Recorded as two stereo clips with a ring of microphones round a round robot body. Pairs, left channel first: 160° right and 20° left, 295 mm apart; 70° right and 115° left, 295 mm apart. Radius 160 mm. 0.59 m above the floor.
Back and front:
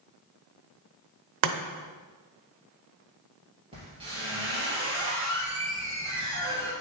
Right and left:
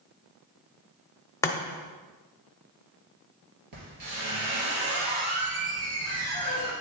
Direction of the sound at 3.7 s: 95° left.